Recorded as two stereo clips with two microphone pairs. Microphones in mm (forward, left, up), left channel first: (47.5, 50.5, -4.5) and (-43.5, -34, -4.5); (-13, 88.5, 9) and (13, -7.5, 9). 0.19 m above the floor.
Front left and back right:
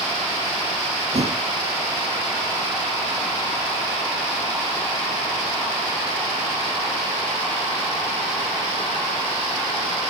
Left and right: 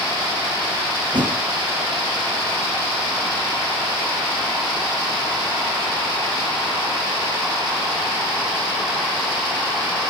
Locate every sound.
1.1 s a thud: 110° right, 1.7 m